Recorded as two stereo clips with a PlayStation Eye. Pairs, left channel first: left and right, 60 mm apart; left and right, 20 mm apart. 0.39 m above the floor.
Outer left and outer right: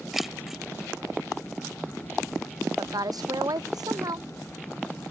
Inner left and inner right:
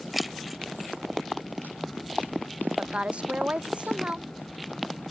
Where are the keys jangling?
5° right (ahead or behind).